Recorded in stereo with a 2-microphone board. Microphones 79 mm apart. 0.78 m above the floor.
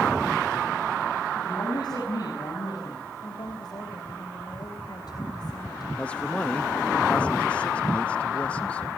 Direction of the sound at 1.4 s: 60° left (ahead or behind).